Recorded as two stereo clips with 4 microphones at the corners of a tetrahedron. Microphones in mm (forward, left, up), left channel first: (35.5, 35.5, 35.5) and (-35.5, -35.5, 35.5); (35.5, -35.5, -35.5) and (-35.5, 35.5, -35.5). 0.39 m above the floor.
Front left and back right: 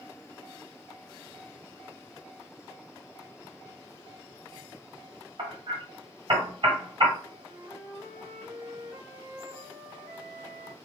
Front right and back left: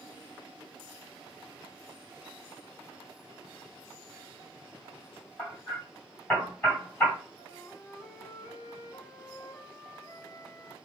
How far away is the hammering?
About 2.0 m.